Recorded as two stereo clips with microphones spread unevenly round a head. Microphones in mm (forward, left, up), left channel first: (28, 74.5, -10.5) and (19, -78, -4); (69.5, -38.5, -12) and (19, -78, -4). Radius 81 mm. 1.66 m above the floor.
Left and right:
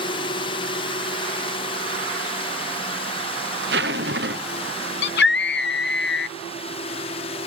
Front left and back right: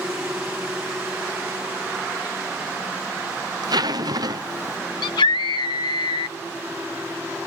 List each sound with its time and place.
0.0 s a drone: 145° left
3.6 s a zipper: 125° right
5.0 s a scream: 70° left